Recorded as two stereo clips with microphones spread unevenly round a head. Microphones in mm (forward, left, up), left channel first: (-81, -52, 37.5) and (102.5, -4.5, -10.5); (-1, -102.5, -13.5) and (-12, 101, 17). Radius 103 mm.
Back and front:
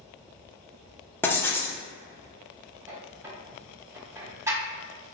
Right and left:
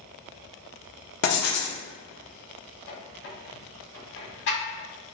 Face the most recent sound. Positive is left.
turn(degrees=-70)